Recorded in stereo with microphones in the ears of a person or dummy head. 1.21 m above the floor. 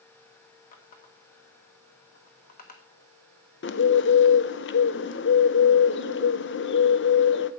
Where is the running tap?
45° left (ahead or behind), 1.2 m.